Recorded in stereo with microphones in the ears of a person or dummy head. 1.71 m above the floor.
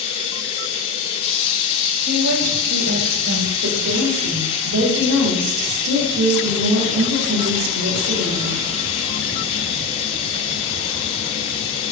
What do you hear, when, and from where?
0.0 s running water: 35° left (ahead or behind), 7.5 m
2.0 s a woman speaking: 85° right, 8.5 m
3.6 s a woman speaking: 75° right (ahead or behind), 6 m